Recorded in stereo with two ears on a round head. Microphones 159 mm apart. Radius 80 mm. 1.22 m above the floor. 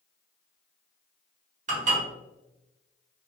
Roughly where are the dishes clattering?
Right.